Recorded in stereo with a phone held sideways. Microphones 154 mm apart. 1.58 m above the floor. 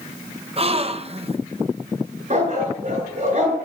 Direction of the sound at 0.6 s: 40° right (ahead or behind).